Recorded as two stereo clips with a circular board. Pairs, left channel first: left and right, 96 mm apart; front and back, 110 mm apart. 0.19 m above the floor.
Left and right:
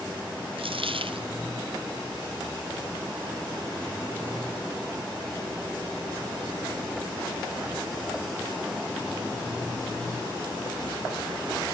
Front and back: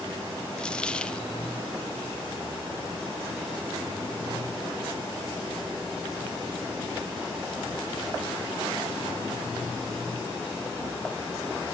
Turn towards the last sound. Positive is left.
turn(degrees=-80)